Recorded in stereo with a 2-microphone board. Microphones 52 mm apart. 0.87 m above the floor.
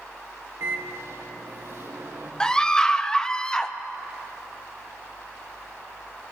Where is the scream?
15° left (ahead or behind), 0.6 m.